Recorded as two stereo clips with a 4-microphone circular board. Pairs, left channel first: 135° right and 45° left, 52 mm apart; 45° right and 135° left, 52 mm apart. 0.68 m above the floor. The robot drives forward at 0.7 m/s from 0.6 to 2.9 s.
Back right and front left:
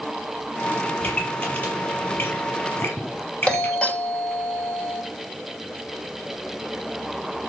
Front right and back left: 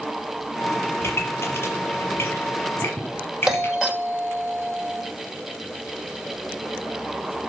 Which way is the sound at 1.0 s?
80° right.